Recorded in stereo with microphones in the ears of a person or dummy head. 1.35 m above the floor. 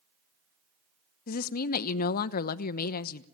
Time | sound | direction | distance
1.3 | a woman speaking | 55° left (ahead or behind) | 0.9 m